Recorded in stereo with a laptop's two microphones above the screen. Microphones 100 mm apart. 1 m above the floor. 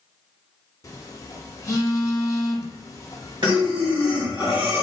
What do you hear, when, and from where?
0.8 s a phone buzzing: 35° left (ahead or behind), 0.6 m
3.4 s breathing: 50° right (ahead or behind), 1.7 m